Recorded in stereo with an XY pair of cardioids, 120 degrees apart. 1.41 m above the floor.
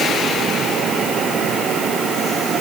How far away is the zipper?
No zipper in this recording.